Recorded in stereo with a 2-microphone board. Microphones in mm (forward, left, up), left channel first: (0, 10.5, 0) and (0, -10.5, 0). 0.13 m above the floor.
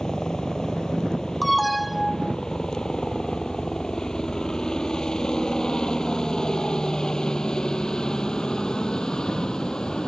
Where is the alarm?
5° left (ahead or behind).